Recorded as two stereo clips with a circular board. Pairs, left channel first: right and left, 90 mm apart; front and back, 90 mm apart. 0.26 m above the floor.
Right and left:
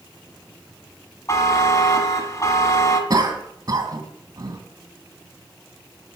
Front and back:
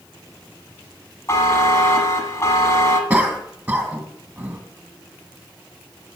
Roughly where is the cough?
Left.